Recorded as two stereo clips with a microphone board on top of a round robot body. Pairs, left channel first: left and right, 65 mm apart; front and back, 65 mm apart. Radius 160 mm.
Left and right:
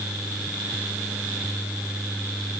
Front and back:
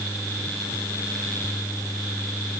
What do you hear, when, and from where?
Only background noise.